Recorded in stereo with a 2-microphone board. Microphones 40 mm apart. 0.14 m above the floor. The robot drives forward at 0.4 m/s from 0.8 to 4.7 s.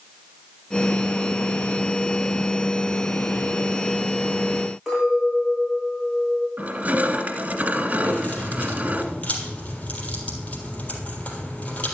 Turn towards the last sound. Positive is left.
turn(degrees=30)  # may be behind; listen again after turning